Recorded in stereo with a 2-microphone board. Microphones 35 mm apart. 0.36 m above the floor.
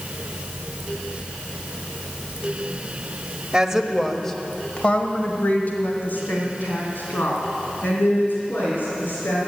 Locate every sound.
3.5 s a woman speaking: 20° right (ahead or behind), 1.2 m; by 9.4 s 80° left, 5 m